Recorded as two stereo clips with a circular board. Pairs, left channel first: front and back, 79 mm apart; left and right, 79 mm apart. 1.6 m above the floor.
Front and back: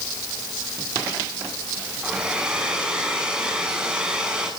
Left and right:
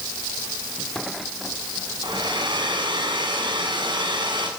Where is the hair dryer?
100° right, 7 m.